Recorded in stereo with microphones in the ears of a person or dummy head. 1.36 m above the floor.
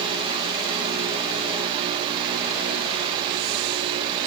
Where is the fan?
30° right (ahead or behind), 1.4 m.